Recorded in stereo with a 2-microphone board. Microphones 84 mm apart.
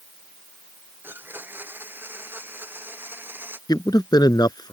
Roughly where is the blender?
Right.